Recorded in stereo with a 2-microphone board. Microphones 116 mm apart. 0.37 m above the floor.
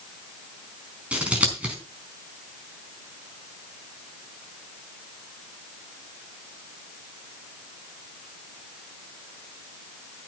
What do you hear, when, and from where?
1.1 s scissors: 10° right (ahead or behind), 4.5 m